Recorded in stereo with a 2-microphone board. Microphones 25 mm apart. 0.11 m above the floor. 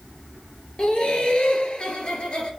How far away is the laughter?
About 2 m.